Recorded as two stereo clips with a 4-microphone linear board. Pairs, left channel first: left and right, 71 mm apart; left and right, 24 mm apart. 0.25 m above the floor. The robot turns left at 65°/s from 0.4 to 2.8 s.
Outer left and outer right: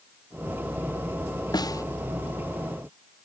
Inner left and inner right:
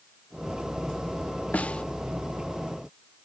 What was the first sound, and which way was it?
A snare drum, 70° left (ahead or behind).